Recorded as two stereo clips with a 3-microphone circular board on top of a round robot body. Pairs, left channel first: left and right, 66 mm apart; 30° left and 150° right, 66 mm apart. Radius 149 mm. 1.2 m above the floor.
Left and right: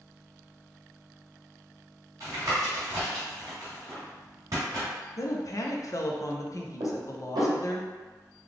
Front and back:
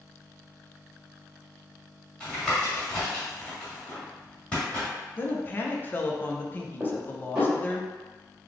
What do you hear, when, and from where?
2.2 s tapping: 45° right, 1.6 m
5.2 s a woman speaking: 80° left, 0.8 m
6.8 s dishes clattering: 75° right, 1.5 m